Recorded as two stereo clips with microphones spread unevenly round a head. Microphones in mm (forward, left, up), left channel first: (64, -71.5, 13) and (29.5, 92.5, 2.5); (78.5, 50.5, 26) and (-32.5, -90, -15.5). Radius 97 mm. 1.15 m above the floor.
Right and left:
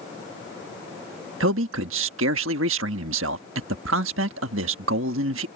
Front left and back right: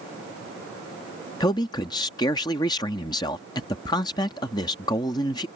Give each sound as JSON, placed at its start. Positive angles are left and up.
{"t": 1.4, "sound": "a man speaking", "azimuth_deg": 120}